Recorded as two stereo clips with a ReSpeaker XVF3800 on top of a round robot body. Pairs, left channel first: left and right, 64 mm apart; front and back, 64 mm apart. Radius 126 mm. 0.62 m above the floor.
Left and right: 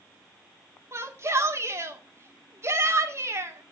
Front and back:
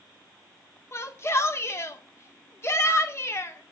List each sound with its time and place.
0.9 s a shout: 45° right, 2 m